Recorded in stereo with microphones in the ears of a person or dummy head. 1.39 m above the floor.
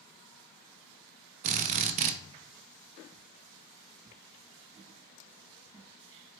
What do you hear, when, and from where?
1.4 s a drill: 40° right (ahead or behind), 0.5 m